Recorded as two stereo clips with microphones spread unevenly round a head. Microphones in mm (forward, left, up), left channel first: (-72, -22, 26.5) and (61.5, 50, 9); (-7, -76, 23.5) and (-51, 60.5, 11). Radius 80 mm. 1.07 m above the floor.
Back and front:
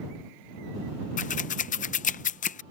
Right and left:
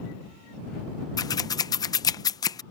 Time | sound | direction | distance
1.2 | scissors | 130° right | ?